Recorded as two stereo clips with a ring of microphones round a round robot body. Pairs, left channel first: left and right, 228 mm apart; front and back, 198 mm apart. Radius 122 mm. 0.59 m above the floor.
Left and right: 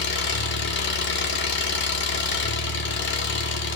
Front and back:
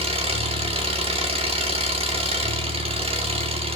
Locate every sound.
0.0 s an engine running: 125° left, 1.4 m